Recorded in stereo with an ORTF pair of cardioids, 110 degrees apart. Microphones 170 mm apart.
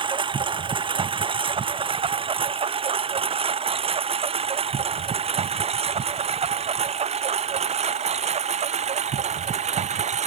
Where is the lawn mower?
30° right; by 10.3 s 40° right.